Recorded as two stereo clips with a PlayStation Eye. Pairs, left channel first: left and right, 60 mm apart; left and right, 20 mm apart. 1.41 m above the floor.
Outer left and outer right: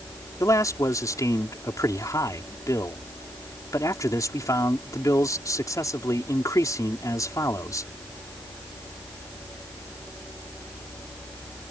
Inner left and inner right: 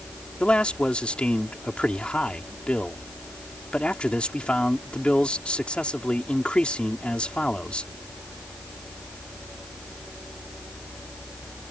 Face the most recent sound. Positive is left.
turn(degrees=70)  # may be behind; listen again after turning